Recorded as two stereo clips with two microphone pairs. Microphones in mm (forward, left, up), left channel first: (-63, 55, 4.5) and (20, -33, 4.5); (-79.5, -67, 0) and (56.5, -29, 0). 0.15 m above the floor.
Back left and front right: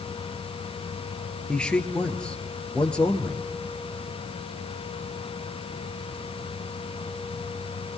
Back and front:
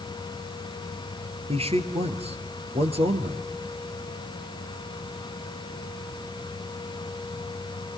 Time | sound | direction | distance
1.5 | a man speaking | 55° left | 2.5 m